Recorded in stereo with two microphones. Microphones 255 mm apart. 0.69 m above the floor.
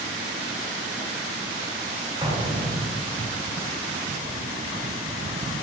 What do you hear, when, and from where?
2.2 s an explosion: 20° right (ahead or behind), 0.6 m